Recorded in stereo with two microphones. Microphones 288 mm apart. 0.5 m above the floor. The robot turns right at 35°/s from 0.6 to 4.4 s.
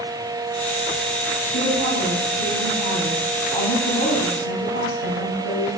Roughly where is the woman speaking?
Ahead right.